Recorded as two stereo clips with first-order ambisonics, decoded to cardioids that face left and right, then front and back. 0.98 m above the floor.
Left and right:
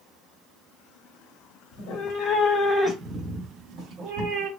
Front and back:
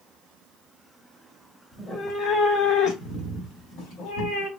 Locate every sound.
1.7 s a cat meowing: 80° left, 0.8 m; by 4.5 s 40° right, 1.7 m